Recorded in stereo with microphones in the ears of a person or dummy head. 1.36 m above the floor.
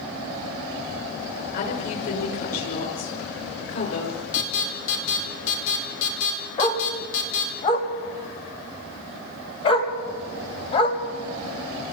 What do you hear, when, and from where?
1.5 s a woman speaking: 50° left (ahead or behind), 6 m; by 4.2 s 45° left (ahead or behind), 4.5 m
4.3 s an alarm: 70° left (ahead or behind), 4 m
6.6 s a dog barking: 35° left (ahead or behind), 2.5 m